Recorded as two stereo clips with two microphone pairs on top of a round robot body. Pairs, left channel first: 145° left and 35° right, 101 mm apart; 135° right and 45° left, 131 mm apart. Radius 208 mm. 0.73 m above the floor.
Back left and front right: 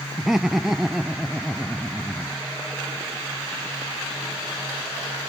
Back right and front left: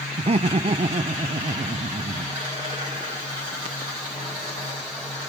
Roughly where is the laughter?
Ahead left.